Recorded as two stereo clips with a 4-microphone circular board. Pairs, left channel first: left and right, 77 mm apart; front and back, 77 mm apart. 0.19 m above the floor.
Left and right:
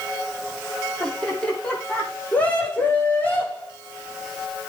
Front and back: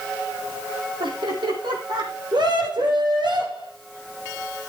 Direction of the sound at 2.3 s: 165° left.